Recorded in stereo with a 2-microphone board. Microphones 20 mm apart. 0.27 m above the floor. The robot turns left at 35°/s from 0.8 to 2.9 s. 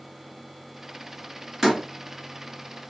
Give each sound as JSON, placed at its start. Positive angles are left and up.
{"t": 1.6, "sound": "a door slam", "side_deg": -20, "distance_m": 1.5}